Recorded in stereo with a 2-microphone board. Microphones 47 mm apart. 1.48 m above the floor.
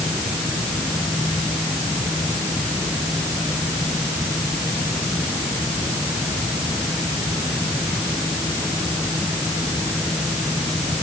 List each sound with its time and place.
Only background noise.